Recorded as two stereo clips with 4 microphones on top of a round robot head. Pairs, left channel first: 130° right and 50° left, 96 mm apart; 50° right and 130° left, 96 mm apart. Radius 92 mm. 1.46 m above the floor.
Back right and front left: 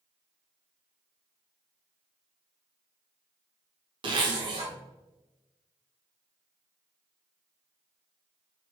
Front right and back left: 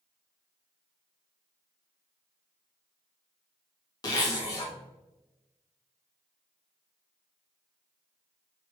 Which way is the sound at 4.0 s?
5° left.